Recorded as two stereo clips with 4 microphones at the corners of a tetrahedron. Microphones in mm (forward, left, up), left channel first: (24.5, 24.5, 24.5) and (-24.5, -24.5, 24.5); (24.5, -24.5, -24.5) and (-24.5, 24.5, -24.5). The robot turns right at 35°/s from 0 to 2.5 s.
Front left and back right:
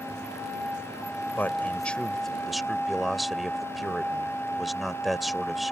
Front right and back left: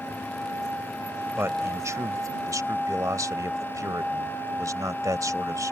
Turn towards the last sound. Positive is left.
turn(degrees=135)